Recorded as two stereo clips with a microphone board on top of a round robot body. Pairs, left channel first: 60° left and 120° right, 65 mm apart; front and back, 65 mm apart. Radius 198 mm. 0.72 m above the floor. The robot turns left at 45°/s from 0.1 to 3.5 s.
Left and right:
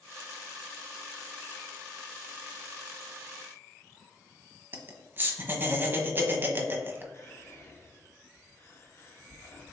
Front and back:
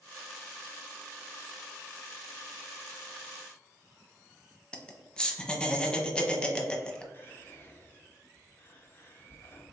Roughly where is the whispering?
Ahead left.